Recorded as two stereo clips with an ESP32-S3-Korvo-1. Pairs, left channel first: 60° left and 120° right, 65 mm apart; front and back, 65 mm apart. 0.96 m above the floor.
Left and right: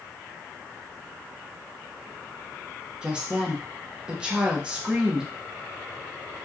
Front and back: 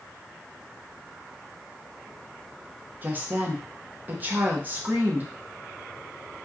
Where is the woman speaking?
Straight behind, 0.7 m.